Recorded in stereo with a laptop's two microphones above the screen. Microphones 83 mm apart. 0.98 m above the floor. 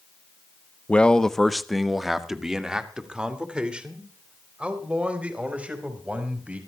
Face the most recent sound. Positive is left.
turn(degrees=-15)  # may be behind; listen again after turning